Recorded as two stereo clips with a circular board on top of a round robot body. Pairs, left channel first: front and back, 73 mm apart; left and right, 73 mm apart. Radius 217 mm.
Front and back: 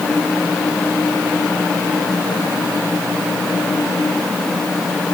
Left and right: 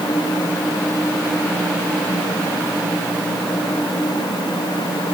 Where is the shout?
No shout in this recording.